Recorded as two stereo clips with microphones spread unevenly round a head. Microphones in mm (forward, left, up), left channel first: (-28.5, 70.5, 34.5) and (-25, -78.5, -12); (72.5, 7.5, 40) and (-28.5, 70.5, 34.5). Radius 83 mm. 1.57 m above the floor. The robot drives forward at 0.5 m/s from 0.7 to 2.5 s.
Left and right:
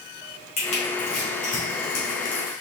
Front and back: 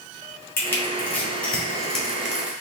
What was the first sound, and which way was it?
Crushing, 40° left.